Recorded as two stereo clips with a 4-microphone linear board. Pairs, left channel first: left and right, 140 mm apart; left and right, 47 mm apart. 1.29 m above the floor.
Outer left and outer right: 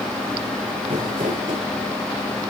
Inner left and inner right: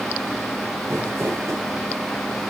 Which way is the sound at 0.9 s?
85° right.